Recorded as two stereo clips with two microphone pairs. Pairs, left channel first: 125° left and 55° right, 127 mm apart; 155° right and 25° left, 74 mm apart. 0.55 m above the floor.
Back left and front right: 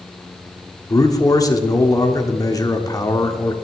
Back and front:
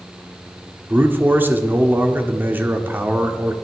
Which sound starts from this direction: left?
A man speaking, at 0.9 s.